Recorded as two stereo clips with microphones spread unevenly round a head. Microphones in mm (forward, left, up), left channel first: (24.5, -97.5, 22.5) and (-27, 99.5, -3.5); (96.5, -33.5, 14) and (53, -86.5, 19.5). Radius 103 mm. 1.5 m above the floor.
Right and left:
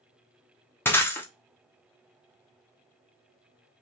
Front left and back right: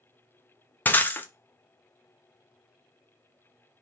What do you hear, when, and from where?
0.8 s breaking glass: 5° right, 0.7 m